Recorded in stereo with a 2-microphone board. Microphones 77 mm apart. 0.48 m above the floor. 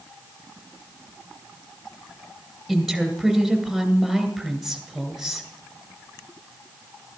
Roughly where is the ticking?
I don't hear ticking.